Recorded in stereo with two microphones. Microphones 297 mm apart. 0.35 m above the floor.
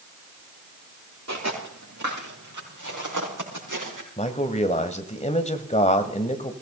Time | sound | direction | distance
1.3 | footsteps | 60° right (ahead or behind) | 5 m
4.2 | a man speaking | 20° left (ahead or behind) | 1.5 m